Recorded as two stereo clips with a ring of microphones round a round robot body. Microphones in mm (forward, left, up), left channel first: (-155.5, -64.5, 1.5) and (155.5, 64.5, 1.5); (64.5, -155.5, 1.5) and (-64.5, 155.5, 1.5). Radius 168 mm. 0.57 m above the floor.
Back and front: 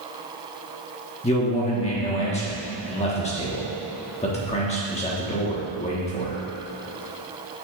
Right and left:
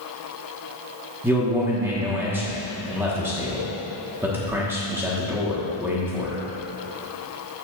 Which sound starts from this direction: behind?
A man speaking, at 1.2 s.